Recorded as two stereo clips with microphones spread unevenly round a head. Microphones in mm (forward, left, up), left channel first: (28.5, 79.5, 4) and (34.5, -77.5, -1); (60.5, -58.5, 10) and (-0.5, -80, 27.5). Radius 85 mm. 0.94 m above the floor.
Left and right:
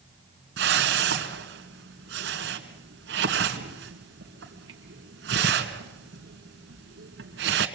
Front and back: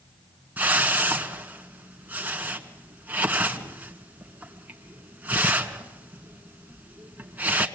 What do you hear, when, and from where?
0.6 s a whoosh: 100° right, 2 m